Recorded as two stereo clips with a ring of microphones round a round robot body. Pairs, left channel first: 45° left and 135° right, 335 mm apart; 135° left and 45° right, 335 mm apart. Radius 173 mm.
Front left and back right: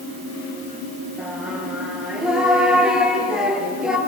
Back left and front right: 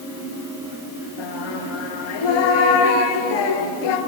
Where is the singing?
135° left, 3 m.